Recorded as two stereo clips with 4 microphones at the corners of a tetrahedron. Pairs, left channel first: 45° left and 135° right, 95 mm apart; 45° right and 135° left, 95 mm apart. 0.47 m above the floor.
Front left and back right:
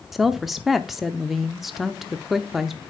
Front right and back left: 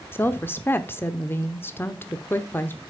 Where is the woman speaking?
50° right, 0.7 m.